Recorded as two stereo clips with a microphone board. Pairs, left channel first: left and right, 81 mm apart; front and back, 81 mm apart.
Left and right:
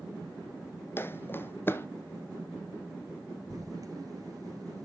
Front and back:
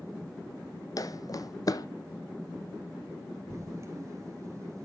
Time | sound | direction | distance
1.0 | footsteps | 30° left | 0.5 m
3.5 | writing | 130° right | 1.5 m